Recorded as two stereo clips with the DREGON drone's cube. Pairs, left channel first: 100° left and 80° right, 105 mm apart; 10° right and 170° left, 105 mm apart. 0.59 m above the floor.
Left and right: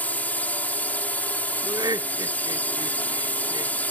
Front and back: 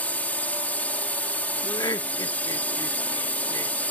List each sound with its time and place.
0.0 s a drone: 45° left
1.6 s laughter: 50° right